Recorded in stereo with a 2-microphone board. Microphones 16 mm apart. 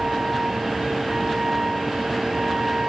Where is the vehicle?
85° right.